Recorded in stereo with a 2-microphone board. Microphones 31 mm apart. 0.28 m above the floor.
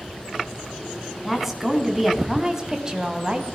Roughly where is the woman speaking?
Centre.